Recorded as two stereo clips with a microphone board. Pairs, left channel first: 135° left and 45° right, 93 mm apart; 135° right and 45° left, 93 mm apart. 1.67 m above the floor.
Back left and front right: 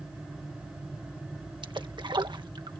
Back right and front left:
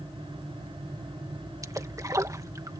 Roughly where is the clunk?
I don't hear a clunk.